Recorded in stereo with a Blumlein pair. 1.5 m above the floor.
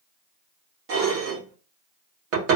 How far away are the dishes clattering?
About 1.6 m.